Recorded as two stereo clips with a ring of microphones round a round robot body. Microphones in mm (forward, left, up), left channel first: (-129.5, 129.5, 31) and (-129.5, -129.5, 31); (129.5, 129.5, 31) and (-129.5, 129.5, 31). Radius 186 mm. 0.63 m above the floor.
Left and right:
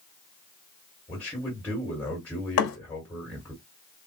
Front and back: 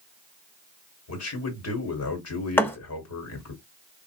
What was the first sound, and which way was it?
A man speaking, 5° left.